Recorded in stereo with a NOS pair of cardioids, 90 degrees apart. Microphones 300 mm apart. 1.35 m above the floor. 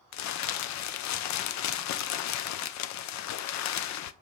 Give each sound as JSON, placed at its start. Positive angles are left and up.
{"t": 0.1, "sound": "crumpling", "azimuth_deg": 70, "distance_m": 0.6}